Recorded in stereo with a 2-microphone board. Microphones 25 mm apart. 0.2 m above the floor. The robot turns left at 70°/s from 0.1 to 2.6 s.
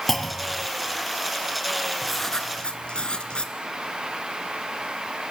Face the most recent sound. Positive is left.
turn(degrees=140)